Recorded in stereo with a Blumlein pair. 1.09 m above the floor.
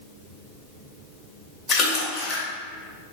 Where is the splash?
25° left, 1.7 m.